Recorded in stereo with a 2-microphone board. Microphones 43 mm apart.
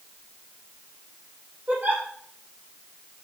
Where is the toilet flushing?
I don't hear a toilet flushing.